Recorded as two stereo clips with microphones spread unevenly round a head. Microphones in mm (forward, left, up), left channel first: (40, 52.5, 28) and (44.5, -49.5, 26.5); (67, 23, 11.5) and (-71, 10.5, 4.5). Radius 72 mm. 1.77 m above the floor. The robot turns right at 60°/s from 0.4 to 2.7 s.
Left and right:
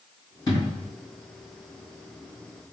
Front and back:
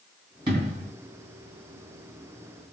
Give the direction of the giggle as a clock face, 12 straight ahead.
I don't hear a giggle.